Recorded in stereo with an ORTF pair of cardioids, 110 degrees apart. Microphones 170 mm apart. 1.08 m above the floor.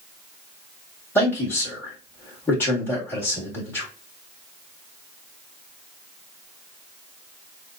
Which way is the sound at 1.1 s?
15° left.